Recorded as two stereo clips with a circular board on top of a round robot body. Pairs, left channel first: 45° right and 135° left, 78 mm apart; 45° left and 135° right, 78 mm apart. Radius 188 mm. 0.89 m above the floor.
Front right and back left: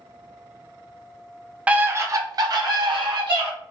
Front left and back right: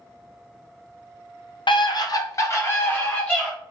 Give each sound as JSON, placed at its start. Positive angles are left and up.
{"t": 1.7, "sound": "a scream", "azimuth_deg": 60, "distance_m": 0.6}